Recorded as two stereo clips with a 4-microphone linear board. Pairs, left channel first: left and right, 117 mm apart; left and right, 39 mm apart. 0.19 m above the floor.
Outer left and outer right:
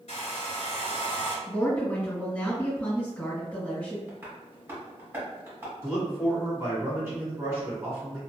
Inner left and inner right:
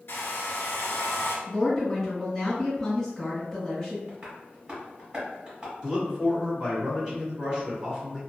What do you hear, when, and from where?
0.1 s a hair dryer: 70° left (ahead or behind), 0.7 m
1.5 s a woman speaking: 10° left (ahead or behind), 2.0 m
4.1 s tapping: 20° right (ahead or behind), 1.5 m
5.8 s a man speaking: 25° right (ahead or behind), 1.5 m